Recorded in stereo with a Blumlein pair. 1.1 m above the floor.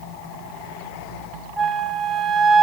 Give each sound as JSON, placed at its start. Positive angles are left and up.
{"t": 1.6, "sound": "a flute", "azimuth_deg": -10, "distance_m": 0.8}